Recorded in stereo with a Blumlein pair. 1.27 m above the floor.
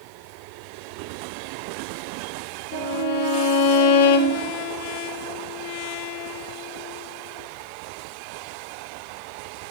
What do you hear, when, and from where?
2.7 s a violin: 55° left, 1.5 m